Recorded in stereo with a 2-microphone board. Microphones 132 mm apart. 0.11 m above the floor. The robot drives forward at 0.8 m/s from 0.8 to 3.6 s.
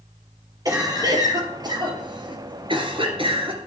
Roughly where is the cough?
Right.